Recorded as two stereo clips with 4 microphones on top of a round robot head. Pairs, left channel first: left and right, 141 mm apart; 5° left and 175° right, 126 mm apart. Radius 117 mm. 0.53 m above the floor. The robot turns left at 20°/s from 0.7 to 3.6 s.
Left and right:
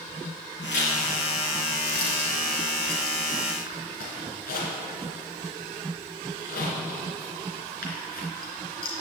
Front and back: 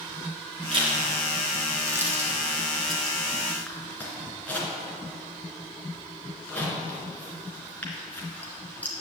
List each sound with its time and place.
0.7 s a zipper: 140° left, 3 m; by 8.9 s 80° left, 3 m